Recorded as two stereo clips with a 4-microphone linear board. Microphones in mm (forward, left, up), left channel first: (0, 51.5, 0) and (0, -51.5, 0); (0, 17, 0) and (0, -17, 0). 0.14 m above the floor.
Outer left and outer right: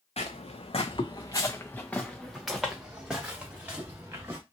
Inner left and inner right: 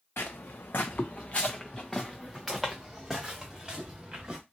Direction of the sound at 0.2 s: 85° left.